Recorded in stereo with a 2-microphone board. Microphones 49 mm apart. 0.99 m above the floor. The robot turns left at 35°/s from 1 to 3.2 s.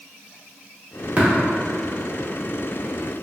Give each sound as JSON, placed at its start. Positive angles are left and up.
{"t": 1.2, "sound": "tapping", "side_deg": -35, "distance_m": 0.9}